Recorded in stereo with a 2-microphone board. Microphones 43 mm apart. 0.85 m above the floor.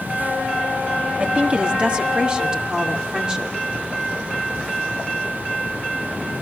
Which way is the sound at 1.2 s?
35° right (ahead or behind).